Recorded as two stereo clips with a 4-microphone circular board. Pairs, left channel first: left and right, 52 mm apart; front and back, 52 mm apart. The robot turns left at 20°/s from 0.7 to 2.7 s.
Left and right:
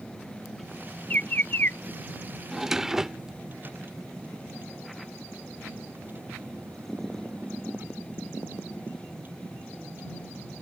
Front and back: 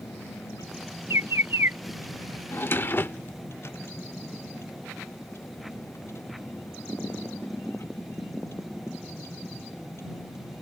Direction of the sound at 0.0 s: Straight ahead.